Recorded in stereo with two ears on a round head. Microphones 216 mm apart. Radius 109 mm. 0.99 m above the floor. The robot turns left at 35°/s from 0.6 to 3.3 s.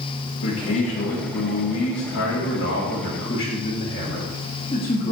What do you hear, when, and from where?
0.4 s a man speaking: 120° left, 1.6 m; by 5.1 s 25° left, 1.6 m